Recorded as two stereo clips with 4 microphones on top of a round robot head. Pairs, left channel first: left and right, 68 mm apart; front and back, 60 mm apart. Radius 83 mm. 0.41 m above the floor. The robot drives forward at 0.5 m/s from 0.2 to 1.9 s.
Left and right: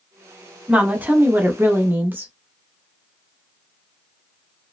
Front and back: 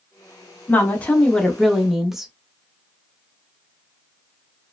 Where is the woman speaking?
35° right, 1.0 m; by 2.3 s 100° right, 0.8 m.